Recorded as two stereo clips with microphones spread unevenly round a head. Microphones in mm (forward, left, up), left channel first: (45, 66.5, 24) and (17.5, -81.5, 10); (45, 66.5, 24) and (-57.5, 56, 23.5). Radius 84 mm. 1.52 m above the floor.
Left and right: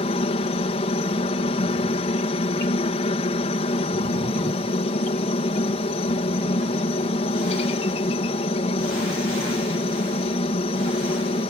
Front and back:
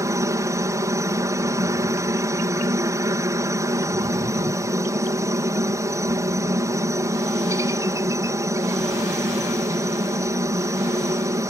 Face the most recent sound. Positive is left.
turn(degrees=130)